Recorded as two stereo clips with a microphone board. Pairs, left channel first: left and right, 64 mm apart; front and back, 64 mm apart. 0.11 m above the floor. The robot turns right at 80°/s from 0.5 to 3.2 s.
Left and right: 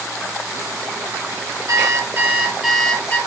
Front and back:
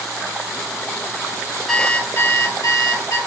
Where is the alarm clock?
85° right, 1.2 m; by 3.2 s 35° left, 1.2 m.